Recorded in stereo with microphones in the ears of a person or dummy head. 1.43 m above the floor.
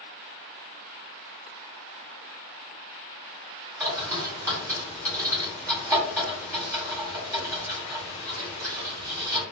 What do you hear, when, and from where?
3.8 s a bird: 5° right (ahead or behind), 1.5 m